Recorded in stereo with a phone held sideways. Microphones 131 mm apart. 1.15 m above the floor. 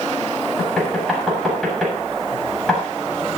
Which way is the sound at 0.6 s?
Centre (ahead or behind).